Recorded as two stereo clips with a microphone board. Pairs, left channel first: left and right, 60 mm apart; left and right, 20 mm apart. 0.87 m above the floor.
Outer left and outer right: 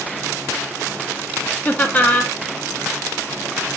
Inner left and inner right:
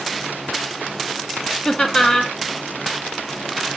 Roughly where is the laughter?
Left.